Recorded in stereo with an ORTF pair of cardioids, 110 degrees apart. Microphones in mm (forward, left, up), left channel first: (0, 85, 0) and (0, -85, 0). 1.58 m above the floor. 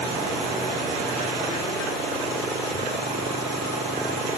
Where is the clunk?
No clunk in this recording.